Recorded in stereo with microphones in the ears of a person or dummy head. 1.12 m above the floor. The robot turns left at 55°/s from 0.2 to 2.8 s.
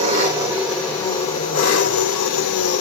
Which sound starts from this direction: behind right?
An engine running, at 0.0 s.